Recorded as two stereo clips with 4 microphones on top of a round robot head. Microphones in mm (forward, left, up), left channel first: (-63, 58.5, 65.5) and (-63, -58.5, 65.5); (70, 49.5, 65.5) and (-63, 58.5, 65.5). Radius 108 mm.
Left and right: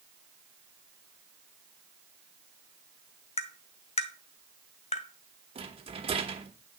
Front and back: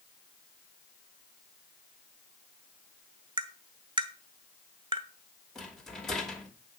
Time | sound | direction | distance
3.4 | tapping | 120° left | 1.0 m
5.5 | a rattle | 90° right | 1.5 m